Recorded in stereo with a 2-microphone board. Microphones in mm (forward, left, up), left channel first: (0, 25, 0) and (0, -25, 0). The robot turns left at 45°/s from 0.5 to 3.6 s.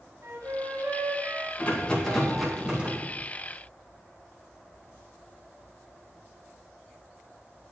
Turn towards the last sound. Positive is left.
turn(degrees=-55)